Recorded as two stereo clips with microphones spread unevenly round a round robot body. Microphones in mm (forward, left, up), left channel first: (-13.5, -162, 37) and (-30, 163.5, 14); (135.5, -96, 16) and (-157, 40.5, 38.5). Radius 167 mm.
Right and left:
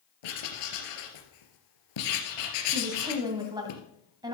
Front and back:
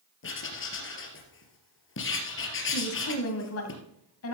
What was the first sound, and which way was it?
Writing, 80° right.